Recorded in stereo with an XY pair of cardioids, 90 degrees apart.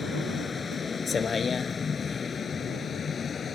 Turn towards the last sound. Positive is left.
turn(degrees=45)